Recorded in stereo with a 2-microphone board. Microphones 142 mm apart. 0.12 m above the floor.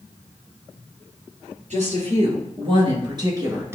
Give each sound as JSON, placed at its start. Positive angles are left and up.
{"t": 1.7, "sound": "a woman speaking", "side_deg": -55, "distance_m": 2.0}